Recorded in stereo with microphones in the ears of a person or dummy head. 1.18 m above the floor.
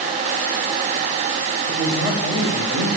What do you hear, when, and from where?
1.6 s a man speaking: 20° right (ahead or behind), 6 m